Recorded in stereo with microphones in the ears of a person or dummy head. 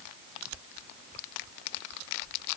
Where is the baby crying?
I don't hear a baby crying.